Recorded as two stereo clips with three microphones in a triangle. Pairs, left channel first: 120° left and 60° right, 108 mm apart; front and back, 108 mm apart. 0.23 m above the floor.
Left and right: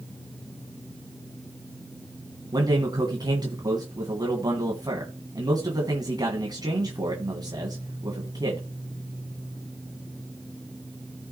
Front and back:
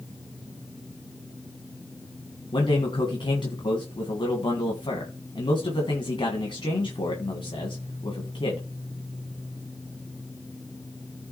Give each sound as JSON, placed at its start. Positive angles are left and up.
{"t": 2.5, "sound": "a man speaking", "azimuth_deg": -20, "distance_m": 2.0}